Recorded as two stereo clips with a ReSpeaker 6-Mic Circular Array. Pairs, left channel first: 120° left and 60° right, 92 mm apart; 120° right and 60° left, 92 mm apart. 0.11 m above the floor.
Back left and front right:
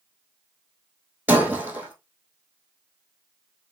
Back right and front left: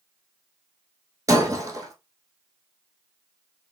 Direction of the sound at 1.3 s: 15° left.